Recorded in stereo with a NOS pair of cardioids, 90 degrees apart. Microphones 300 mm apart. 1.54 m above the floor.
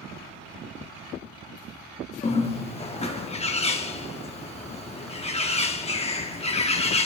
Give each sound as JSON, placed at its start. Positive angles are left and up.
{"t": 2.2, "sound": "a bird", "azimuth_deg": 20, "distance_m": 0.9}